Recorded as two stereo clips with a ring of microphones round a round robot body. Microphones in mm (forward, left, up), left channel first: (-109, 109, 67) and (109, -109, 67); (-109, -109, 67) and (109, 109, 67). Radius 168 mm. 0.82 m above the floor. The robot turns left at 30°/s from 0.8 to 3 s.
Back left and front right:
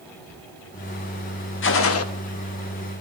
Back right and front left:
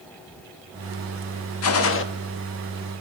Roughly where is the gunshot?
Behind.